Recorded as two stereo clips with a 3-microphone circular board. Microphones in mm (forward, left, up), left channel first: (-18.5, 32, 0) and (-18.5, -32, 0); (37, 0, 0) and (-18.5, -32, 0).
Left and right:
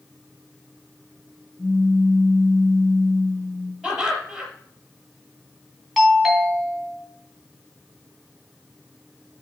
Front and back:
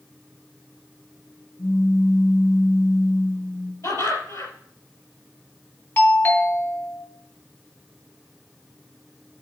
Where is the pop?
45° left, 3 m.